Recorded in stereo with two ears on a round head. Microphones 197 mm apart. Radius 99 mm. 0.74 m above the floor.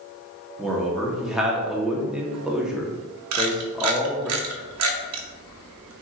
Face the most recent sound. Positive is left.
turn(degrees=-70)  # may be behind; listen again after turning